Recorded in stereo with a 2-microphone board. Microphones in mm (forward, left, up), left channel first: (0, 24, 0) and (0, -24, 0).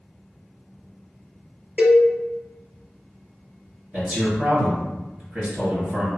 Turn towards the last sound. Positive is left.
turn(degrees=-30)  # may be behind; listen again after turning